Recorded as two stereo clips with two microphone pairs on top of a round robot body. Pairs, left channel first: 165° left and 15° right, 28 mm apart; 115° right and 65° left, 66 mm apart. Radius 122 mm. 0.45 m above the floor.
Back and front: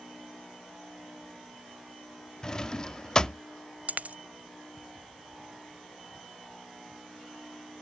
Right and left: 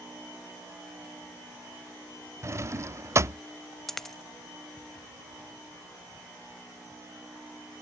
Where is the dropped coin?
30° right.